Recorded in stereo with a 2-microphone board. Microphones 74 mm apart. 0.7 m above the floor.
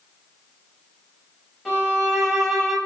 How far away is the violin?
About 5.5 m.